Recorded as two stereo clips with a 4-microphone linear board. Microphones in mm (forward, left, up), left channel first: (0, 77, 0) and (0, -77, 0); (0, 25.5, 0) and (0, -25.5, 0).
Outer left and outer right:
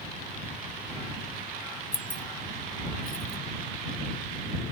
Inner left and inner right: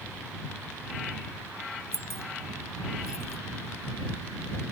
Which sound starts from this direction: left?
Keys jangling, at 1.9 s.